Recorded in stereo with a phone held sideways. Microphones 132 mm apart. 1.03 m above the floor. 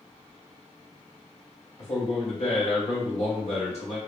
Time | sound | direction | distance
1.8 | a man speaking | 55° left (ahead or behind) | 2 m